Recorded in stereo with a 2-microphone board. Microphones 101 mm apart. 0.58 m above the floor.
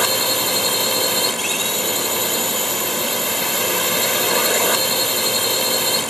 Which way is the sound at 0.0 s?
Centre (ahead or behind).